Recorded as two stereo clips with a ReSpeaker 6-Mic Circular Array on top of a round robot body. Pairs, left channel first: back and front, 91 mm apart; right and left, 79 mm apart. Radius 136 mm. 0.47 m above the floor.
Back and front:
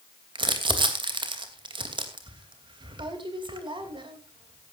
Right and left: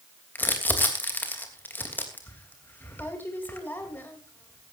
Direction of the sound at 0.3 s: 25° right.